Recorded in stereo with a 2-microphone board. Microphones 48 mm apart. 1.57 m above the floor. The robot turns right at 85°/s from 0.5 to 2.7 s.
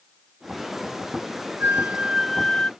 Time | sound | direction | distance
1.6 | a flute | 60° right | ?